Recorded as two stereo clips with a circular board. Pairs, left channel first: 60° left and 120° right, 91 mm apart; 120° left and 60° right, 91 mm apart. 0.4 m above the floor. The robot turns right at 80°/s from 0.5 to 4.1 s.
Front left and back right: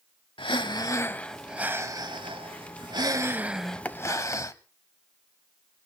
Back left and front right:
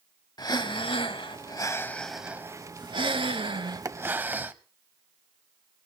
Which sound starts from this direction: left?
Breathing, at 0.4 s.